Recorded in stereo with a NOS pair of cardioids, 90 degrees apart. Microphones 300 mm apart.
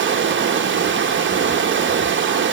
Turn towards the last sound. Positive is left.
turn(degrees=-40)